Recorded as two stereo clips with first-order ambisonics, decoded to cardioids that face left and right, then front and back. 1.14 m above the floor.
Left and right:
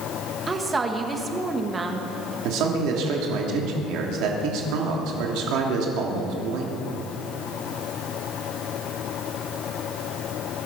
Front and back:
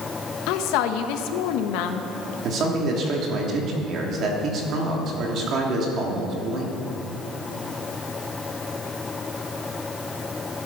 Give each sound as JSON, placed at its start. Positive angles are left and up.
{"t": 0.5, "sound": "a woman speaking", "azimuth_deg": -15, "distance_m": 1.5}
{"t": 2.4, "sound": "a man speaking", "azimuth_deg": -125, "distance_m": 3.0}